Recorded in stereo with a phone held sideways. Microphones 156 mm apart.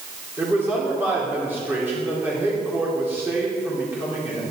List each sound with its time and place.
0.4 s a man speaking: 10° right (ahead or behind), 3 m